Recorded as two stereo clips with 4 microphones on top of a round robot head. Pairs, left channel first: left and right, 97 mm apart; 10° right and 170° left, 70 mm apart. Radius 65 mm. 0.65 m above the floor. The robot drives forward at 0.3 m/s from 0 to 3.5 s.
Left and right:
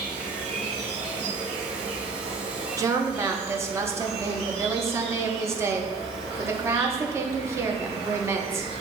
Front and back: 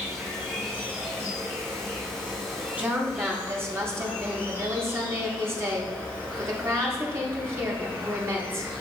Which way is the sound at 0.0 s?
80° right.